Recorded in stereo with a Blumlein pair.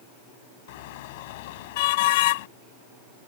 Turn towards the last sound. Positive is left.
turn(degrees=50)